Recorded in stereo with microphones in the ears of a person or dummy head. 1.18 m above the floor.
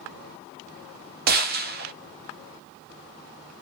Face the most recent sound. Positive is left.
turn(degrees=-50)  # may be behind; listen again after turning